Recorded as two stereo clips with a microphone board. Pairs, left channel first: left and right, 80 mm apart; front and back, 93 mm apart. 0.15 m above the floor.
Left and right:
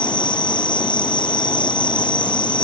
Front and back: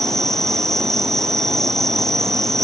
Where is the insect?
85° left.